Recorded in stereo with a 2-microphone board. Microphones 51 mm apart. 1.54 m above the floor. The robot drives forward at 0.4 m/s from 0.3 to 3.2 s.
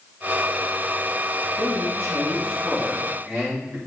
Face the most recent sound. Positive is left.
turn(degrees=-35)  # may be behind; listen again after turning